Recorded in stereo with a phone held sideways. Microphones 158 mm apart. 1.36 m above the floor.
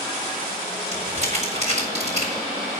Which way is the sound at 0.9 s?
45° right (ahead or behind).